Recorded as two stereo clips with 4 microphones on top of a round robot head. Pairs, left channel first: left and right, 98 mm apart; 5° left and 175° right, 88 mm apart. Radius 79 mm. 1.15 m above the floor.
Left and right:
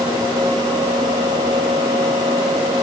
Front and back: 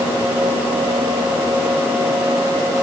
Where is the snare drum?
No snare drum in this recording.